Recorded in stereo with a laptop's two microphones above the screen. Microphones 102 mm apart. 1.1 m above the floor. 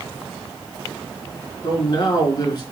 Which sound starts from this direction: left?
A man speaking, at 1.6 s.